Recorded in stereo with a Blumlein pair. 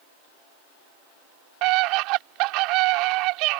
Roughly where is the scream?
Ahead right.